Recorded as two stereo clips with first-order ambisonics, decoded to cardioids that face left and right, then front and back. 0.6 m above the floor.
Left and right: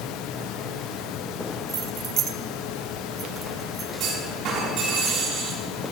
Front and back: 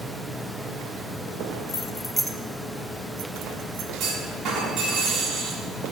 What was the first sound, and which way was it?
Keys jangling, 40° right.